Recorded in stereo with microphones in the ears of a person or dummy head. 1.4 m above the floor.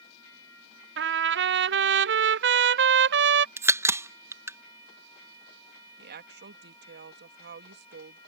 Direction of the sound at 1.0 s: 55° right (ahead or behind).